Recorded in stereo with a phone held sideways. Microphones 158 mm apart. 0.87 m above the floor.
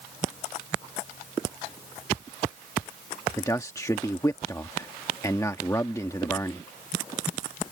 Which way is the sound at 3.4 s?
20° left (ahead or behind).